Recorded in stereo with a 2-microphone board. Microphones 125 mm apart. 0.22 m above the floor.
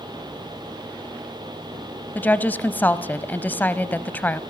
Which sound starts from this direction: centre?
A woman speaking, at 2.1 s.